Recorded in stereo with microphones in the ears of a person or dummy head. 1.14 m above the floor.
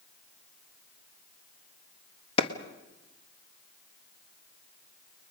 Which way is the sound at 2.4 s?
35° left (ahead or behind).